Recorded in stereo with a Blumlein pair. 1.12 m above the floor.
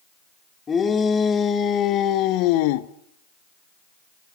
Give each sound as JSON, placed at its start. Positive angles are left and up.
{"t": 0.7, "sound": "a shout", "azimuth_deg": 20, "distance_m": 3.5}